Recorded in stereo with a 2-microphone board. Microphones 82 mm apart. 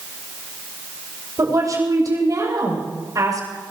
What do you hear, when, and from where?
1.4 s a woman speaking: 45° right (ahead or behind), 7 m